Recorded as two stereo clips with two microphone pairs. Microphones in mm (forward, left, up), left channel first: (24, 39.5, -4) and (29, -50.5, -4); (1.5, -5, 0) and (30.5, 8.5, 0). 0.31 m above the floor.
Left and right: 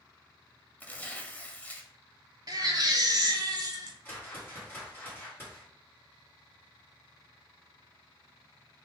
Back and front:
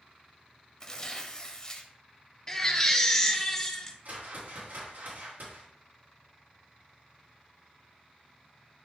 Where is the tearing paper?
155° left, 1.0 m.